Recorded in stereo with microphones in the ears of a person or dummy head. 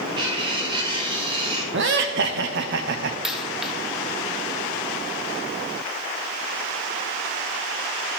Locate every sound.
0.2 s cutlery clinking: 30° right (ahead or behind), 2.5 m
1.7 s laughter: 60° right (ahead or behind), 0.7 m
3.2 s a dropped coin: 10° right (ahead or behind), 1.1 m